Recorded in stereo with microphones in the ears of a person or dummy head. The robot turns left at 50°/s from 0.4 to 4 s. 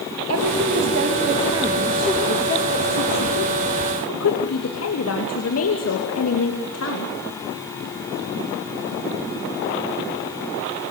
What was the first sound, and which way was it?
A woman speaking, 100° right.